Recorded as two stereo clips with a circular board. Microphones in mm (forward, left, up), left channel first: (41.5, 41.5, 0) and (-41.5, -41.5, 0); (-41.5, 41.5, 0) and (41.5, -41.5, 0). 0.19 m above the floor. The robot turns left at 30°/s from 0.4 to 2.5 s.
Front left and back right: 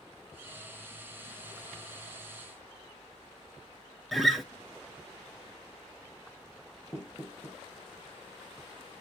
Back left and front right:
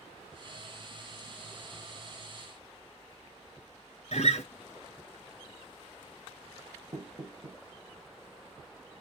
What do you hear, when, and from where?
4.1 s a guitar: 135° left, 1.0 m
6.9 s knocking: 10° right, 1.6 m